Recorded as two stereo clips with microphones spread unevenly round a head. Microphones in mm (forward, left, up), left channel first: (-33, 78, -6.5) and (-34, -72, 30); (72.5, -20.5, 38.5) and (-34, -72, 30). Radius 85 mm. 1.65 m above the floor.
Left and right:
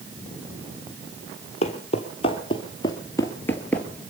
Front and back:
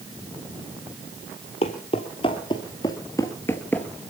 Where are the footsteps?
35° left, 2.5 m; by 3.9 s 20° right, 1.7 m.